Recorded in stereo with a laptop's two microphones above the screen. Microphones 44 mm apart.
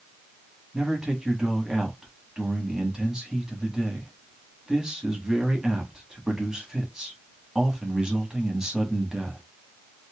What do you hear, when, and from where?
0.7 s a man speaking: 15° right (ahead or behind), 1.3 m